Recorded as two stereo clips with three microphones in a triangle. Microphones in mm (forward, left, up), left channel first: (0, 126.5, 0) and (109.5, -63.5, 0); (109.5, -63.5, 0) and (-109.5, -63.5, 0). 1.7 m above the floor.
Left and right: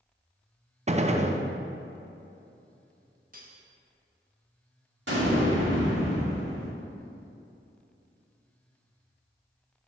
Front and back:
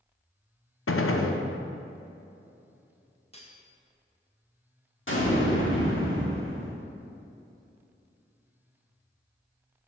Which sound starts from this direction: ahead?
A gunshot, at 0.9 s.